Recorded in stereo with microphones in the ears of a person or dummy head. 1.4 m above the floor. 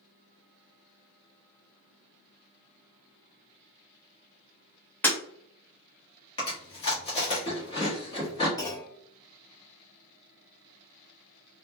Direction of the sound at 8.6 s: 15° left (ahead or behind).